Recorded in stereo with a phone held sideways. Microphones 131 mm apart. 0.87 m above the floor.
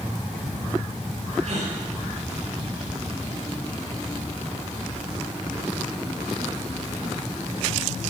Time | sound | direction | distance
1.4 | a gasp | 55° right (ahead or behind) | 4 m